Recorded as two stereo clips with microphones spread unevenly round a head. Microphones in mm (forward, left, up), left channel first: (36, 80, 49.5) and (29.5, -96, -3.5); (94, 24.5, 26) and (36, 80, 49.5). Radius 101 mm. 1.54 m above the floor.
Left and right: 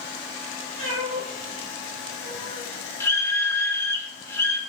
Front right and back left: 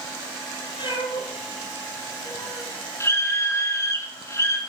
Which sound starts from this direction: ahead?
A scream, at 3.0 s.